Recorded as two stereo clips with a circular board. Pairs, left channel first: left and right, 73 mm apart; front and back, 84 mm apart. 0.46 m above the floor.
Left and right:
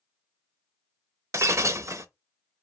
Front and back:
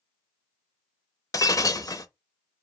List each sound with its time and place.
1.3 s breaking glass: 45° right, 0.7 m